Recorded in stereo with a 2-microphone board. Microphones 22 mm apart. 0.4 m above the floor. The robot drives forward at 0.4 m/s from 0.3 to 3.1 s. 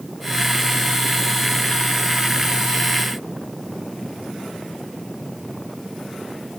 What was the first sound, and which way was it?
Only background noise.